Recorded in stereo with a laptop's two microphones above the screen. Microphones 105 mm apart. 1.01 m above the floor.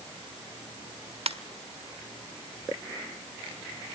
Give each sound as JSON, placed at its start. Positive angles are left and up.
{"t": 1.3, "sound": "a ringtone", "side_deg": -70, "distance_m": 1.4}